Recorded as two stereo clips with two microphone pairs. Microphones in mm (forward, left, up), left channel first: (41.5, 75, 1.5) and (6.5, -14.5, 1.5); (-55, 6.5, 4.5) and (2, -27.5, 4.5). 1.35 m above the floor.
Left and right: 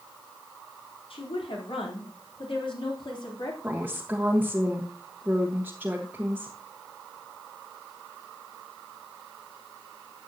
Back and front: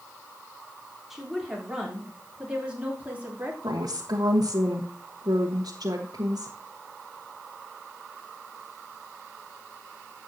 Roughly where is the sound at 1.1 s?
Ahead left.